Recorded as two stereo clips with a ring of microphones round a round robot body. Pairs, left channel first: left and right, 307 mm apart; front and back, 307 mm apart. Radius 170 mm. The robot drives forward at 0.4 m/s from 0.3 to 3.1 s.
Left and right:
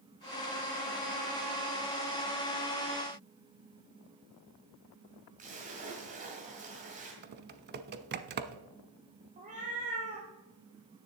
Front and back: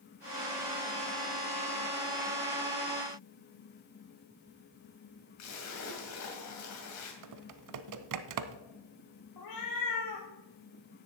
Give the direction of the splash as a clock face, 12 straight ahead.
1 o'clock.